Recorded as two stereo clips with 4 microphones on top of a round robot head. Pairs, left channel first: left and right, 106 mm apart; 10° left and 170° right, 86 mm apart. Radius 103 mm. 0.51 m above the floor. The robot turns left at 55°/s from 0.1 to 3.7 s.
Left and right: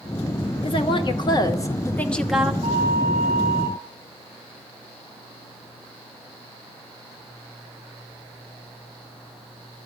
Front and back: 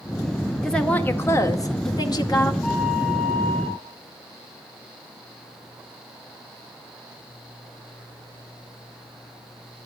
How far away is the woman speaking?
About 1.9 m.